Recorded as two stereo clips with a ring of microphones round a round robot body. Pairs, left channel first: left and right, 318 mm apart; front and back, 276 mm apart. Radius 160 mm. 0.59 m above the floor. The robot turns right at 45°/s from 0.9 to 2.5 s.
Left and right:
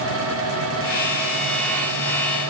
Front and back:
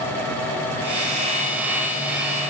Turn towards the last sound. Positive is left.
No sound to turn to.